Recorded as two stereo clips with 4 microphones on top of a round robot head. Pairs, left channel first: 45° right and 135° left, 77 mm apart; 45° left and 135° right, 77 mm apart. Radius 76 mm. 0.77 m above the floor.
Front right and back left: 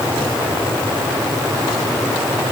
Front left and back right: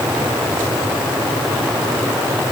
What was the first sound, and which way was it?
Only background noise.